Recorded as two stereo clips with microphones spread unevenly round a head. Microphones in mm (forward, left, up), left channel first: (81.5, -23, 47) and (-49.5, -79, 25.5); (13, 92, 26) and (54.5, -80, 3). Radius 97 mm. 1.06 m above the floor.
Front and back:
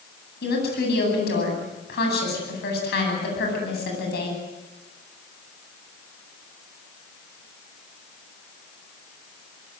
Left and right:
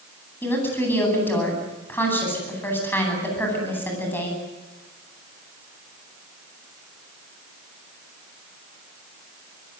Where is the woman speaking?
25° left, 10 m.